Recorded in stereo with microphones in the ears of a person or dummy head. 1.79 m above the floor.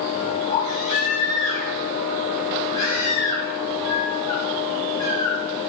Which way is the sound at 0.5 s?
40° left (ahead or behind).